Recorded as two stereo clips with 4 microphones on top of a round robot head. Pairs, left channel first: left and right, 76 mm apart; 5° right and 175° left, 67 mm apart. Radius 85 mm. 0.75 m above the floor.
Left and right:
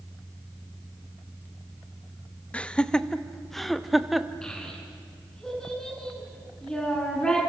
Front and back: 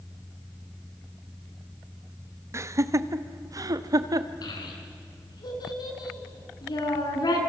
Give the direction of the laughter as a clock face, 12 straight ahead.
7 o'clock.